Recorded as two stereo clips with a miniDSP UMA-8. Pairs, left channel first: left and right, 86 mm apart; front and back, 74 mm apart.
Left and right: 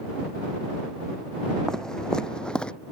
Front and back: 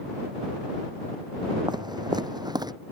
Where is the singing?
I don't hear singing.